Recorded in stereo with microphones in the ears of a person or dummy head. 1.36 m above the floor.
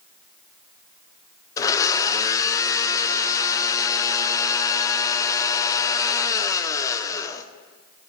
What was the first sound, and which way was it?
A blender, 15° left (ahead or behind).